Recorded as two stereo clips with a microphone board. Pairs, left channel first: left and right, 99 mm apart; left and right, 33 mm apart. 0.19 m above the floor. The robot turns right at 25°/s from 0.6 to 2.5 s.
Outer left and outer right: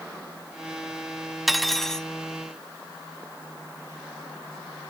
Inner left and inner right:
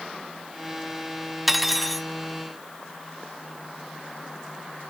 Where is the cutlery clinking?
Centre (ahead or behind), 0.7 m; by 2.1 s 5° left (ahead or behind), 0.7 m.